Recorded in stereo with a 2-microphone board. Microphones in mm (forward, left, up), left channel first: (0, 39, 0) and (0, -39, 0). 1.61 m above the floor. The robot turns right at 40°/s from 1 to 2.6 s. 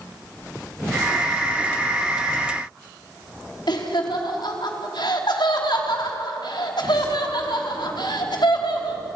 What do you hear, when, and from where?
3.7 s laughter: 75° left (ahead or behind), 3.5 m